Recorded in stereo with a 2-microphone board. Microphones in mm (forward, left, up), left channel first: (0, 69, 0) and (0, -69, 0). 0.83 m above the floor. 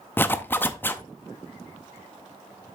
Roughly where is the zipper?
Centre.